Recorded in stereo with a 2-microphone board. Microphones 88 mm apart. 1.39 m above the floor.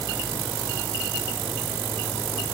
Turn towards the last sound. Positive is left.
No sound to turn to.